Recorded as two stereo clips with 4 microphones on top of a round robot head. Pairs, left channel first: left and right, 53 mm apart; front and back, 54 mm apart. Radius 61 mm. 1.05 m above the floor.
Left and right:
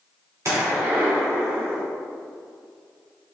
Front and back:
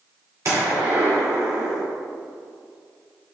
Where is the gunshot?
135° right, 2 m.